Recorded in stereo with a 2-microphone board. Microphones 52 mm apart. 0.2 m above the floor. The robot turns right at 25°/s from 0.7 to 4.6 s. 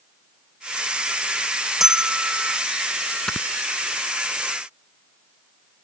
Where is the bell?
5° right (ahead or behind); by 2.6 s 25° right (ahead or behind).